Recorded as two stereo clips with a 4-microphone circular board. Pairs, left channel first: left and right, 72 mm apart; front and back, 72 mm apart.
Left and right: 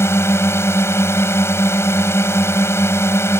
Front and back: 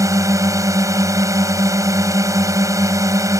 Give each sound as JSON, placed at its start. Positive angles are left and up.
{"t": 0.0, "sound": "a drone", "azimuth_deg": 140}